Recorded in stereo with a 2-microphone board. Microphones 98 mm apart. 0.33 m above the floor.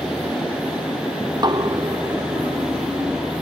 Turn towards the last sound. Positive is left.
turn(degrees=-45)  # may be behind; listen again after turning